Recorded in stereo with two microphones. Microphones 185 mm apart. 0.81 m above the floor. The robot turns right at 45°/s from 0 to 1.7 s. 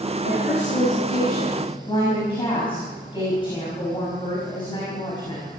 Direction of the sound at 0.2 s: 90° left.